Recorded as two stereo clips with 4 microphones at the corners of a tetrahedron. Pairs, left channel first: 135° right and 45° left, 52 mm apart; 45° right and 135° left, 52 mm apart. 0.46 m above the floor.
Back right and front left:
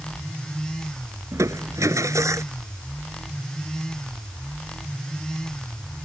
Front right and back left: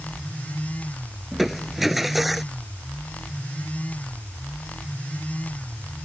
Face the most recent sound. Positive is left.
turn(degrees=50)